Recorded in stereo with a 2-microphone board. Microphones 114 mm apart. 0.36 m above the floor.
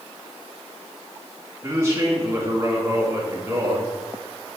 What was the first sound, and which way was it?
A man speaking, 25° right (ahead or behind).